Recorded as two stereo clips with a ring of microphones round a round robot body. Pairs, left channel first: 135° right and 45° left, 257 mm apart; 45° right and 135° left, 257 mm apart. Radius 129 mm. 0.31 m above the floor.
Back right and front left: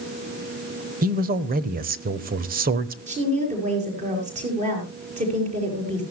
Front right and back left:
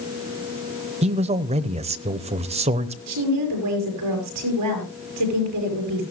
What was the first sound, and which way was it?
A man speaking, 80° left.